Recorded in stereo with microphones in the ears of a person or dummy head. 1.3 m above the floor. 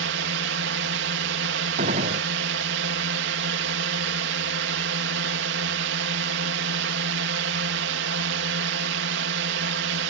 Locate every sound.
0.0 s a drone: 55° right (ahead or behind)
1.8 s a gunshot: 35° right (ahead or behind)